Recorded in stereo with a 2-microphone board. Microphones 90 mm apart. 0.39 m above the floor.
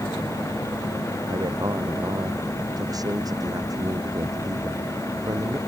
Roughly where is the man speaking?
Right.